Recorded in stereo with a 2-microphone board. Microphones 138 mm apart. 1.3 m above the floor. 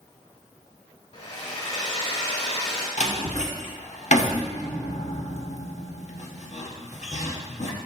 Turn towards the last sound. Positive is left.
turn(degrees=60)  # may be behind; listen again after turning